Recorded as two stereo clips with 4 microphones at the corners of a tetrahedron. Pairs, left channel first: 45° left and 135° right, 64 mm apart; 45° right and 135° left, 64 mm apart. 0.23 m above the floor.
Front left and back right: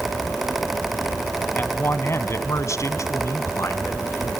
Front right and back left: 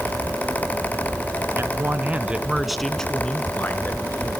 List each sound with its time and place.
1.6 s a man speaking: 95° left, 1.9 m; by 4.4 s 5° left, 3 m